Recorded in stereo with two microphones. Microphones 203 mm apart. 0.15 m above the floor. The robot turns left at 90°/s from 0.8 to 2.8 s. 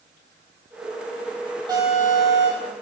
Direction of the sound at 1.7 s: 160° right.